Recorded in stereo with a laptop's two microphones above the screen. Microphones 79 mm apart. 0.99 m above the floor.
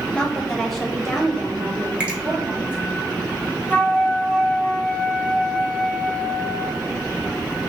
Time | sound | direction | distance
0.1 | a woman speaking | 15° left (ahead or behind) | 1.2 m
2.0 | a finger snap | 15° right (ahead or behind) | 1.8 m
3.7 | a flute | 20° left (ahead or behind) | 0.7 m